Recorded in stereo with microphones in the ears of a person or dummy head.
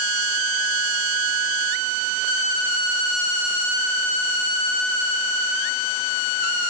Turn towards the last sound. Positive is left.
No sound to turn to.